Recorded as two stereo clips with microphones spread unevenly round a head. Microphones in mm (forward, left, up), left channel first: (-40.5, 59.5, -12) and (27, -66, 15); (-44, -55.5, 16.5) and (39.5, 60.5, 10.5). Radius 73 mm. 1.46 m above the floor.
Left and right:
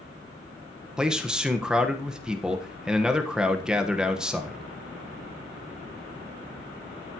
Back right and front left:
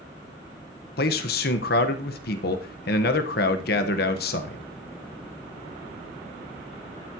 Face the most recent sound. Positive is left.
turn(degrees=-150)